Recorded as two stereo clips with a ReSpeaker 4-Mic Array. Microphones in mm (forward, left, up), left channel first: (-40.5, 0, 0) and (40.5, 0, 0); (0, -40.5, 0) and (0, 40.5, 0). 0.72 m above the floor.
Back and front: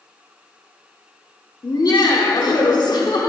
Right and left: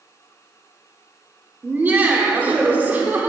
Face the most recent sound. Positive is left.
turn(degrees=155)